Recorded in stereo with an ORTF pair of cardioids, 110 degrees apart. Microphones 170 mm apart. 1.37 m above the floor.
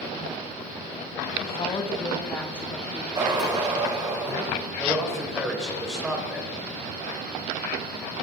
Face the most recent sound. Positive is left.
turn(degrees=-5)